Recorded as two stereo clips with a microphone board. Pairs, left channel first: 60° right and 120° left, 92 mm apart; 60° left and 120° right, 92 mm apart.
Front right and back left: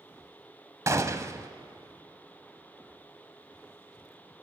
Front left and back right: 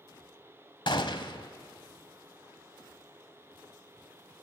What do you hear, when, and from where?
0.9 s a gunshot: 70° left, 1.1 m